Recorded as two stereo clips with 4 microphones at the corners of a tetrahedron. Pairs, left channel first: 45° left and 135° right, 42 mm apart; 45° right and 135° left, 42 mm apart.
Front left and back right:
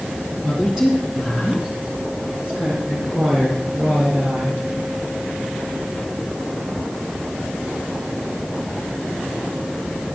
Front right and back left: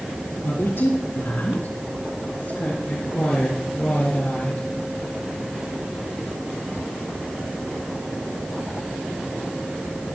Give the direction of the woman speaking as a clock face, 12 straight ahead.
2 o'clock.